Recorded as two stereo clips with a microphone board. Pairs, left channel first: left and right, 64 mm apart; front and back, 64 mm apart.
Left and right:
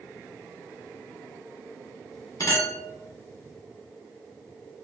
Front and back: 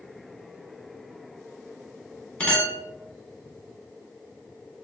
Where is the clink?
75° left, 1.4 m.